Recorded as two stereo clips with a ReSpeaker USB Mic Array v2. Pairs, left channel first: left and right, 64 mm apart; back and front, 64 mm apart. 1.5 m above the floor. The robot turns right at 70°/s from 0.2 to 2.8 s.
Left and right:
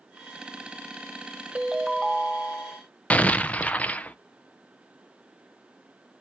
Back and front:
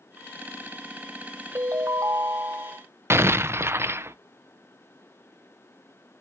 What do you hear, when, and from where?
1.6 s a ringtone: 25° right, 0.7 m; by 2.8 s 65° left, 0.7 m
3.1 s an explosion: 30° left, 0.6 m